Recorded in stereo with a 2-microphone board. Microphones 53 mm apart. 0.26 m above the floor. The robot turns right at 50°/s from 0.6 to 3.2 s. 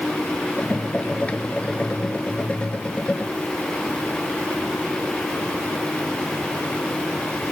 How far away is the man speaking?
I don't hear a man speaking.